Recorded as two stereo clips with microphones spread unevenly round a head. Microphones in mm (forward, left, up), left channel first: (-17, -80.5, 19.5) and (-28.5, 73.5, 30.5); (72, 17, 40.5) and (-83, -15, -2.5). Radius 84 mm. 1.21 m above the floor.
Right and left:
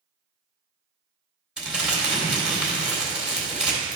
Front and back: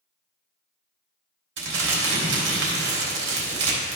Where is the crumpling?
Straight behind, 3 m.